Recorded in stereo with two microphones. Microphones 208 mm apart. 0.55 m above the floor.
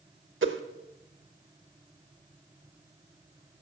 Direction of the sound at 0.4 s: 65° right (ahead or behind).